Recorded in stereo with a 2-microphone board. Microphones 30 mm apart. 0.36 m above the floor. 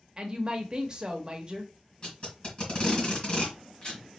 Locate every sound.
0.2 s a woman speaking: 30° right (ahead or behind), 1.0 m
2.0 s tape being pulled: 30° left (ahead or behind), 3 m